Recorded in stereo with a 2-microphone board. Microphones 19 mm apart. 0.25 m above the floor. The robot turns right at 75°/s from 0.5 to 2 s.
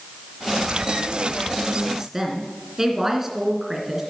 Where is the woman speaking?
30° right (ahead or behind), 2.5 m; by 4.0 s 20° right (ahead or behind), 2.5 m.